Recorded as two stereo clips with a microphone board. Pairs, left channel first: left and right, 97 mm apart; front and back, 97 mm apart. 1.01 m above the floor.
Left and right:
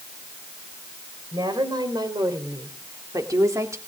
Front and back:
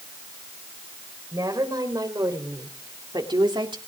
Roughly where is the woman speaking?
Behind right.